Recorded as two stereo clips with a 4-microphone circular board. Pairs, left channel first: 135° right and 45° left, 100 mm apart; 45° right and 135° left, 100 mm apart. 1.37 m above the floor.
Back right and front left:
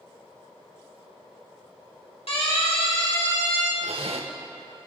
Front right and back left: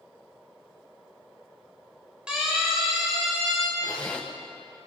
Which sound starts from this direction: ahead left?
A zipper, at 3.8 s.